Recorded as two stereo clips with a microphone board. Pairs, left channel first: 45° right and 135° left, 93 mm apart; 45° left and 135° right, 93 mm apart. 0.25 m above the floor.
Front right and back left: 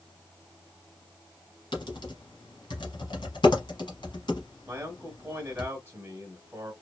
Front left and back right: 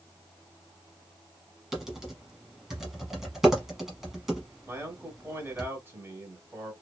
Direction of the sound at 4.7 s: Straight behind.